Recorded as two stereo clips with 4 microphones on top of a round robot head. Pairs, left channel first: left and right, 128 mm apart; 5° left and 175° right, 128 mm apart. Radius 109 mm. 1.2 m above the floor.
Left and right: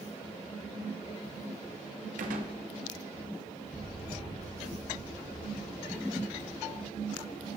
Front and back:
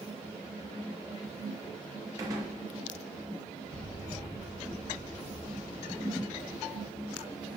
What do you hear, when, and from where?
2.2 s a gunshot: 105° right, 0.7 m
3.7 s an explosion: 175° left, 1.0 m